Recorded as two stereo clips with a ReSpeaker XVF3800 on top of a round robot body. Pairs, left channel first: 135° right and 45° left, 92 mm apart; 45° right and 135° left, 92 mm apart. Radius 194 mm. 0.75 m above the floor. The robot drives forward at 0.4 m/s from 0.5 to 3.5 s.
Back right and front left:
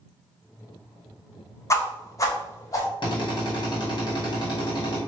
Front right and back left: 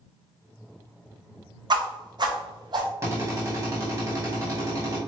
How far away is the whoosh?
About 1.0 m.